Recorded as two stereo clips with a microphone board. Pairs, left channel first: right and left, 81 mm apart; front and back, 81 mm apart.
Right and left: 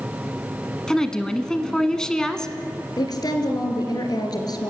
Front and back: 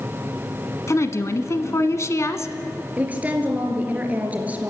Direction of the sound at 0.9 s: 10° right.